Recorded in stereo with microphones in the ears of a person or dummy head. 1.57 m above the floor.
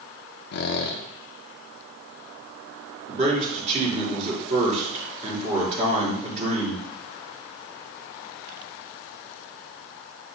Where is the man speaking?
35° right (ahead or behind), 4.5 m.